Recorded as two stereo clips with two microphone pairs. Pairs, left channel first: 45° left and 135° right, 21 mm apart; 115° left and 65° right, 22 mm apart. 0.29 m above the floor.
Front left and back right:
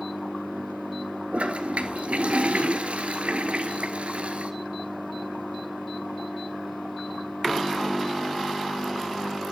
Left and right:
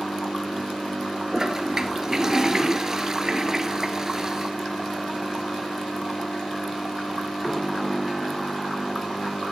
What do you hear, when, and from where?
1.3 s a toilet flushing: 130° right, 1.6 m